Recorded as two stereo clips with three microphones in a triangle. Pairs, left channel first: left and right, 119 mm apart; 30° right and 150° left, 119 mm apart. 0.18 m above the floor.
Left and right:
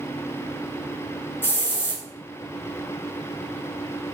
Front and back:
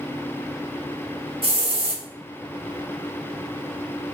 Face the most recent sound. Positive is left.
turn(degrees=155)